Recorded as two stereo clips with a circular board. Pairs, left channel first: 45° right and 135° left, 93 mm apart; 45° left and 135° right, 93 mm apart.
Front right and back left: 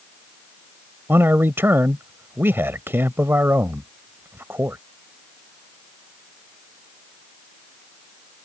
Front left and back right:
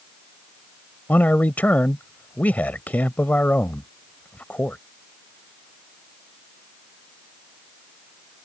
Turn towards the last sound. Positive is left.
turn(degrees=100)